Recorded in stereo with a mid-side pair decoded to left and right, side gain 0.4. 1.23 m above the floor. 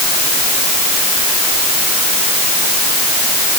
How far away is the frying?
No frying in this recording.